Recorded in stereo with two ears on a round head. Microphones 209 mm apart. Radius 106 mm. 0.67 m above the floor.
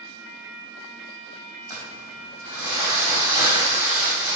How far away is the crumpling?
About 4 m.